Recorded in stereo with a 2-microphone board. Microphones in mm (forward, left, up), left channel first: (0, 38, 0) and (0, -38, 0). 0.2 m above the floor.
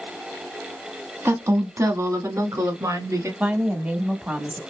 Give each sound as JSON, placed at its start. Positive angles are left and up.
{"t": 1.2, "sound": "a woman speaking", "side_deg": -35, "distance_m": 1.1}
{"t": 3.4, "sound": "a woman speaking", "side_deg": -20, "distance_m": 1.1}